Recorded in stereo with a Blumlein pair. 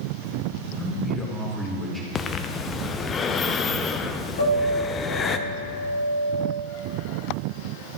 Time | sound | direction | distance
0.8 | a man speaking | 10° left | 1.4 m
2.1 | breathing | 20° left | 0.6 m
4.4 | a piano | 65° left | 2 m